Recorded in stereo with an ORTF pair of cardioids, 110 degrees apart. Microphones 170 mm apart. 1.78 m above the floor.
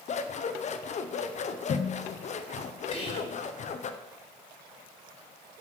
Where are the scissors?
45° left, 1.1 m.